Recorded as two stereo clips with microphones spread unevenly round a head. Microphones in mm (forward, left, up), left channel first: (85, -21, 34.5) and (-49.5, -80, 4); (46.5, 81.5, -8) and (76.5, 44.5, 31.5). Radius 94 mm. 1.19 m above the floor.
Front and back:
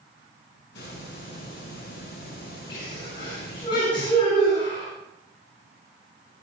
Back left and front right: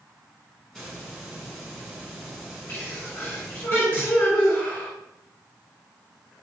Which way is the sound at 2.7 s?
90° left.